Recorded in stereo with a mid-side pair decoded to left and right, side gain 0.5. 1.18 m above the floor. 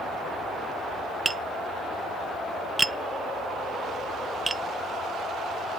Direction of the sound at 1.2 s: 15° right.